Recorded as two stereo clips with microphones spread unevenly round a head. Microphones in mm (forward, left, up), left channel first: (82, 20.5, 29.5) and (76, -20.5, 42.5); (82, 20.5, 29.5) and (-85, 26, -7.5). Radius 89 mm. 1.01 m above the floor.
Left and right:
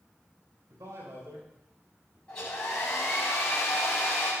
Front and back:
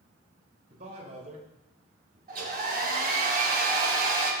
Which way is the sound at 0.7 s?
130° right.